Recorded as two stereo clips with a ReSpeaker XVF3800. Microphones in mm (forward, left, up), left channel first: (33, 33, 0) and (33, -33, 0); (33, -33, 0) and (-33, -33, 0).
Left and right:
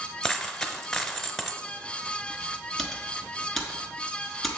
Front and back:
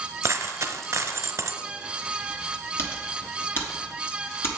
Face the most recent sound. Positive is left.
turn(degrees=5)